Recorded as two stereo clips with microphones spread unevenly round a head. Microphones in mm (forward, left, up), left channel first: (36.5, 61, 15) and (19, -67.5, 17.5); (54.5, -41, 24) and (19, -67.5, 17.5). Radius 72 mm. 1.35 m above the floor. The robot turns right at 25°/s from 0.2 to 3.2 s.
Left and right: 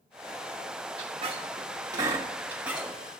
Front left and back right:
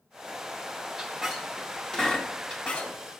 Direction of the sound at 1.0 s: 60° right.